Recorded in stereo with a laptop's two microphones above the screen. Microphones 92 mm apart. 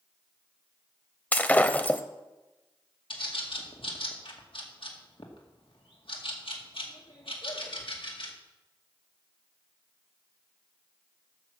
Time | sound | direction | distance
1.3 | breaking glass | 15° left (ahead or behind) | 0.8 m
3.1 | a bird | 70° left (ahead or behind) | 2 m